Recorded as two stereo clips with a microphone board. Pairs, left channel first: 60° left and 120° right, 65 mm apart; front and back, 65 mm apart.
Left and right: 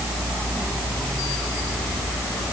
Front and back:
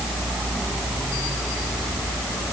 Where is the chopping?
I don't hear chopping.